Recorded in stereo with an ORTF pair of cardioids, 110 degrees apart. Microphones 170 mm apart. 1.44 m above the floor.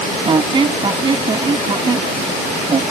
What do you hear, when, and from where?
0.2 s a squeak: 30° right